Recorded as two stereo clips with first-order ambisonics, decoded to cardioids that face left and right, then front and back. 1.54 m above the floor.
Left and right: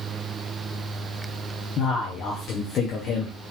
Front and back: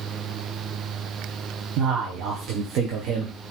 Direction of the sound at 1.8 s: 145° left.